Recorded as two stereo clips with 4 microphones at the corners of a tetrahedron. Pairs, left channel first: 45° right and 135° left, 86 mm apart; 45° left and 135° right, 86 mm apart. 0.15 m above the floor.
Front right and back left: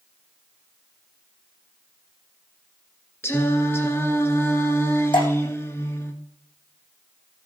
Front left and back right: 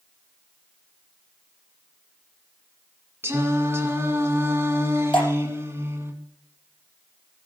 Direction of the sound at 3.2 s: 90° right.